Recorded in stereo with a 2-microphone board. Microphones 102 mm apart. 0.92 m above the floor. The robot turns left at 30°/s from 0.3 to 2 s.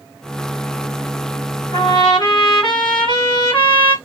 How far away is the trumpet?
About 1.3 m.